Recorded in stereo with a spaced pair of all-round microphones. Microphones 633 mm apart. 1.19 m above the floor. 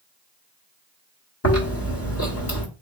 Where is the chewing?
20° left (ahead or behind), 1.4 m.